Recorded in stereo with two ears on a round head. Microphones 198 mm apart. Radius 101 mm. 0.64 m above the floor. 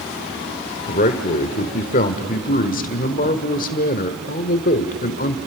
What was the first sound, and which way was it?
A man speaking, 35° left (ahead or behind).